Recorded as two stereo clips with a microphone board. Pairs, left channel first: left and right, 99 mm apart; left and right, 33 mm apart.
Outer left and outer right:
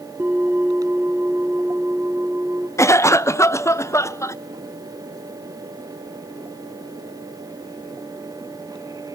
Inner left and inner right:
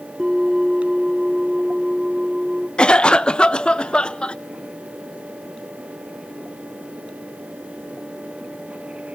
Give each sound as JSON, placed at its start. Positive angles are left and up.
{"t": 0.2, "sound": "a bell", "side_deg": -20, "distance_m": 1.7}
{"t": 2.8, "sound": "a cough", "side_deg": 30, "distance_m": 0.5}